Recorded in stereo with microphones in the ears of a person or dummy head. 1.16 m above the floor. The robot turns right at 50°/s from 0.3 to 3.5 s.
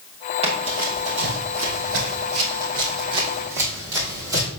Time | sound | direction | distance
0.4 | running footsteps | 30° right (ahead or behind) | 2.5 m